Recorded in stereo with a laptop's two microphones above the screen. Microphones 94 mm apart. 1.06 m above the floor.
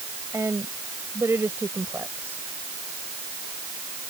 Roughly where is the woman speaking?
Right.